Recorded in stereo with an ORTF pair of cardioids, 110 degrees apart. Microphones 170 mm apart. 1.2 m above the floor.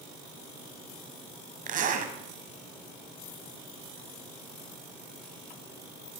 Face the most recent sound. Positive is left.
turn(degrees=-50)